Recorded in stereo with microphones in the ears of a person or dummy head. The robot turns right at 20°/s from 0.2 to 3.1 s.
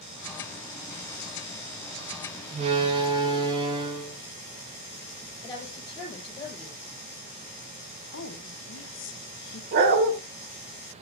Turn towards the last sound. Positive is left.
turn(degrees=-50)  # may be behind; listen again after turning